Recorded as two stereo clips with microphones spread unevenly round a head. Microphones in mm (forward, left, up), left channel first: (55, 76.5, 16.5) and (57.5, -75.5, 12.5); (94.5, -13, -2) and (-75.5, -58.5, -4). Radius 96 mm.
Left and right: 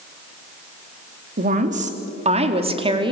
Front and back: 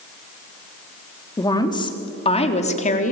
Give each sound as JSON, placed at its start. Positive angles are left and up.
{"t": 1.4, "sound": "a woman speaking", "azimuth_deg": -55, "distance_m": 3.0}